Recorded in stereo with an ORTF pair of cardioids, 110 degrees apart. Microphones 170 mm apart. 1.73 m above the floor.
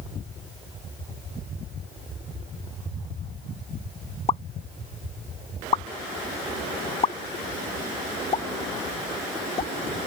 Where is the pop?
35° left.